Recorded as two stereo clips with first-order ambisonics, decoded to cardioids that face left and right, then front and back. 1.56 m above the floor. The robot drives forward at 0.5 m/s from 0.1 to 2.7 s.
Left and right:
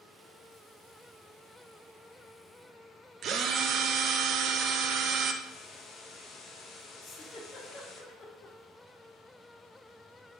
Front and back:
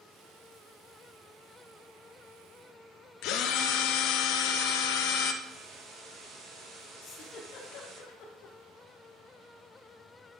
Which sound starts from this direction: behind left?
A hiss, at 5.4 s.